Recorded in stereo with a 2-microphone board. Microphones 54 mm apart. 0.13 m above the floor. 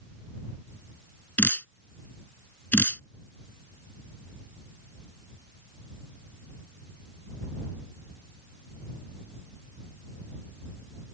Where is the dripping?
35° left (ahead or behind).